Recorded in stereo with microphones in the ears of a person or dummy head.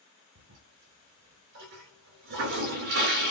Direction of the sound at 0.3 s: 55° right (ahead or behind).